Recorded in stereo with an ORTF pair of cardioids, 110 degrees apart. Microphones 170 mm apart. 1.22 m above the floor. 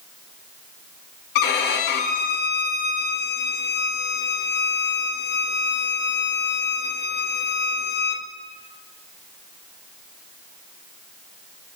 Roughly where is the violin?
Left.